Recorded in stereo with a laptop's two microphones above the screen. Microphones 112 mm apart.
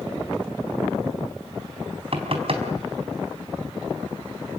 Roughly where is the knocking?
Right.